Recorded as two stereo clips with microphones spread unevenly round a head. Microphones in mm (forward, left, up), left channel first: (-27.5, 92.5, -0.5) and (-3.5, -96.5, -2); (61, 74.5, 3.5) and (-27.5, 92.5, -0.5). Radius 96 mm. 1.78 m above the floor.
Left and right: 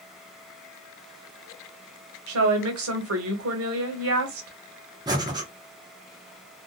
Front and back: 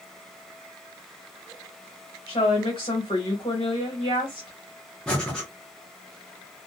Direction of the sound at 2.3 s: 65° right.